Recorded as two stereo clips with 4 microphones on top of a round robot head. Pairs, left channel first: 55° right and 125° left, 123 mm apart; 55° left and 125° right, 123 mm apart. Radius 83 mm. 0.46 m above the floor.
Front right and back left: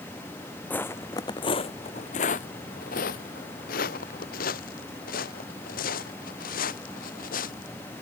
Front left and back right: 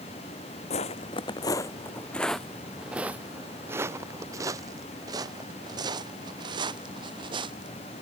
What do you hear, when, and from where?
0.7 s footsteps: 20° left; by 7.7 s 70° right